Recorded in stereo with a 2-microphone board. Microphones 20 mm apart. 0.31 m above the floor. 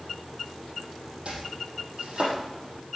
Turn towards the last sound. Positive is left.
turn(degrees=-55)  # may be behind; listen again after turning